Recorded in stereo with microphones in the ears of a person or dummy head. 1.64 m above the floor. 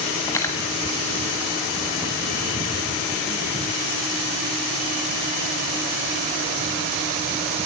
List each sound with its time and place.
0.3 s cutlery clinking: 10° left (ahead or behind), 1.0 m